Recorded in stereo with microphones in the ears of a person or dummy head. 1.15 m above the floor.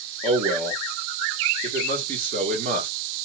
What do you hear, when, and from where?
0.2 s a man speaking: 40° right (ahead or behind), 1.4 m